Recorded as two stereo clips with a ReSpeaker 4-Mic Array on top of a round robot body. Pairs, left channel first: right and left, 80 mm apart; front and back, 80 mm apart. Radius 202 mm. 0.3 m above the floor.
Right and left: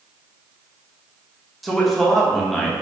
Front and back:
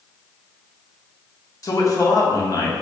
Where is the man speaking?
5° right, 1.1 m.